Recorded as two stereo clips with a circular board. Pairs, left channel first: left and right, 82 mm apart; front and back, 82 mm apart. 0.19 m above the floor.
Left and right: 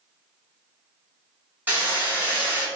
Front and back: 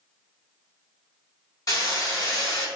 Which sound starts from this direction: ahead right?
Hammering, at 1.7 s.